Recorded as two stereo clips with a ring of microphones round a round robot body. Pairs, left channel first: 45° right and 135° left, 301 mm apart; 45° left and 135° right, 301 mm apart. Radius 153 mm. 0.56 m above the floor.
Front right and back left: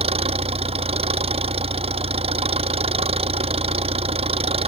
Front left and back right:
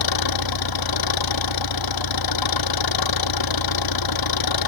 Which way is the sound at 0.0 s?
65° left.